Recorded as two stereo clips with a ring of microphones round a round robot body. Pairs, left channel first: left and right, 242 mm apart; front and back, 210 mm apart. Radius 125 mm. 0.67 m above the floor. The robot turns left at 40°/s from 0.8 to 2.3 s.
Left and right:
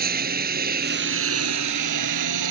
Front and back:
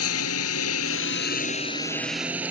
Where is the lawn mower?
35° right; by 2.5 s 95° right.